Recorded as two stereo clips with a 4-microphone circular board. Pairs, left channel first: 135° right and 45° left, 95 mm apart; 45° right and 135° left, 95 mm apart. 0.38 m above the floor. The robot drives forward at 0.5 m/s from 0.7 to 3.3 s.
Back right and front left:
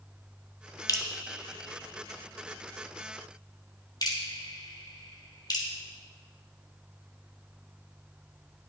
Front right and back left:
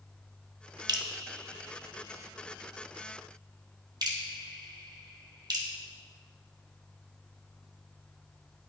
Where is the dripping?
175° left, 0.9 m.